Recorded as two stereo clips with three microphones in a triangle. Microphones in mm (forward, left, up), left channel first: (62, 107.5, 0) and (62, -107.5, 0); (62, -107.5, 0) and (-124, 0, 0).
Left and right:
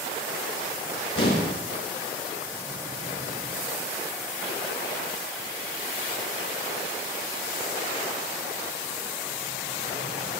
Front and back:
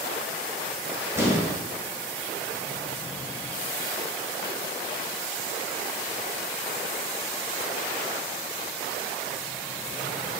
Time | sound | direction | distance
1.1 | an explosion | 75° left | 2 m